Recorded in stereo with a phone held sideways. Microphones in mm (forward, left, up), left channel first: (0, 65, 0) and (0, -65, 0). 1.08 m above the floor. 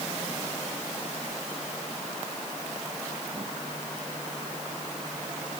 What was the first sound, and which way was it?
Only background noise.